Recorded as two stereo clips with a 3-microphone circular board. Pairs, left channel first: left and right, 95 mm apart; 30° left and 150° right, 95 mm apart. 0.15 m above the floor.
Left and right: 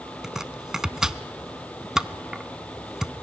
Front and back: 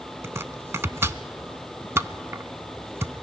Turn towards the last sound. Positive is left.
turn(degrees=-170)